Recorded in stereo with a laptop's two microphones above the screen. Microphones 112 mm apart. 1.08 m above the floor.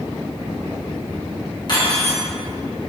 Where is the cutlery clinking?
45° left (ahead or behind), 1.1 m.